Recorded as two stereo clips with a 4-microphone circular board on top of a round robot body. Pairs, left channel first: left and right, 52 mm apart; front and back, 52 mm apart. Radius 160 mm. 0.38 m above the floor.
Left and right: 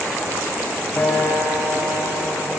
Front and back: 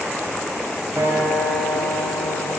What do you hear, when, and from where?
1.0 s a guitar: 140° left, 3 m